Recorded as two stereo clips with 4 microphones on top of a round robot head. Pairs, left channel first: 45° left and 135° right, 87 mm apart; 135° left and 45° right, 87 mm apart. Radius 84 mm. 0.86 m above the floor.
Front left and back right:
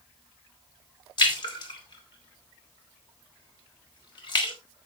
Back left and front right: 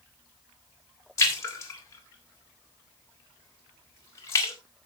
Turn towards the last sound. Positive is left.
turn(degrees=80)